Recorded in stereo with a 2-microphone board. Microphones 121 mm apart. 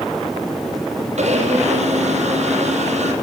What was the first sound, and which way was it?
A blender, 70° right (ahead or behind).